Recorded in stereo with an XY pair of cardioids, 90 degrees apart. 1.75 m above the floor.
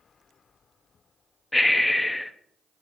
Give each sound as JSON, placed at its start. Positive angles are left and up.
{"t": 1.5, "sound": "breathing", "azimuth_deg": 10, "distance_m": 0.7}